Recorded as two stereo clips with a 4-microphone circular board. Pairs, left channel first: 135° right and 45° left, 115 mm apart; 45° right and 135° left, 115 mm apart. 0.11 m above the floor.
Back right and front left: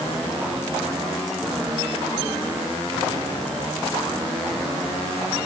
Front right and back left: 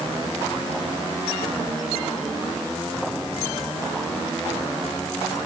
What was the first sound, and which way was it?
Only background noise.